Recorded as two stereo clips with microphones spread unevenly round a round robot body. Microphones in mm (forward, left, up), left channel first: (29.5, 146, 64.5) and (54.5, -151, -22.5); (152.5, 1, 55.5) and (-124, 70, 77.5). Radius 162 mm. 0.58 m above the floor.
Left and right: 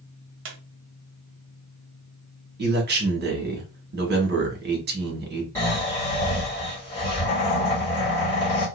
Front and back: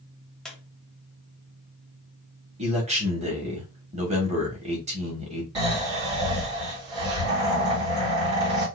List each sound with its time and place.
0.5 s a squeak: 100° right, 0.8 m
2.6 s a man speaking: 125° right, 1.3 m
5.5 s snoring: 175° right, 2.5 m